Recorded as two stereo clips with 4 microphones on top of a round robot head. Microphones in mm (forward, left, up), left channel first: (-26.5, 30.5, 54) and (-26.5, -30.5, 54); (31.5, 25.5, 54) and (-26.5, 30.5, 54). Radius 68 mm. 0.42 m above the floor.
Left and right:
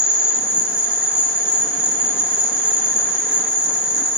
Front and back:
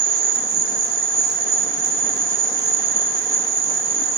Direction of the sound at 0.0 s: 160° right.